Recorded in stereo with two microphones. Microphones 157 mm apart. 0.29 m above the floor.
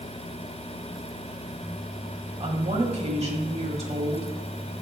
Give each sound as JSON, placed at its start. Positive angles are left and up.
{"t": 2.4, "sound": "a woman speaking", "side_deg": -45, "distance_m": 1.5}